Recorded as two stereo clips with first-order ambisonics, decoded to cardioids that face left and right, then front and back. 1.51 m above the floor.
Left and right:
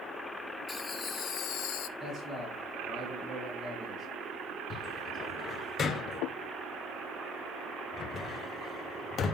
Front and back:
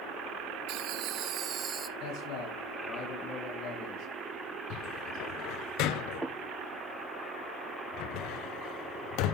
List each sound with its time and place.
0.7 s laughter: 160° left, 0.9 m; by 1.9 s 105° left, 0.8 m
2.0 s a man speaking: straight ahead, 4 m
4.7 s a cupboard door: 25° left, 0.5 m